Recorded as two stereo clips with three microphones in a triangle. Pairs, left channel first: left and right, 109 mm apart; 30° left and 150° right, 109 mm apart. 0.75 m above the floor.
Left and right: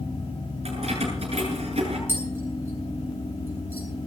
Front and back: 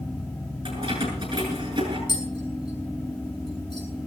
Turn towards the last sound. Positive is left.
turn(degrees=-20)